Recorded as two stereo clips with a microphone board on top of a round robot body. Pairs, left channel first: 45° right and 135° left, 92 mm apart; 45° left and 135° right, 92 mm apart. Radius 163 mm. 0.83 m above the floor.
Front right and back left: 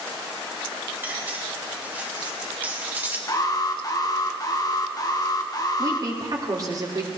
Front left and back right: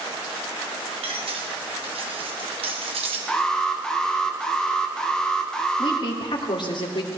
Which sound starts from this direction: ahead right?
An alarm, at 3.3 s.